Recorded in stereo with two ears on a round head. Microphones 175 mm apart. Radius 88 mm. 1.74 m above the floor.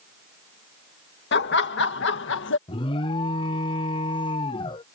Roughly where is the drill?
I don't hear a drill.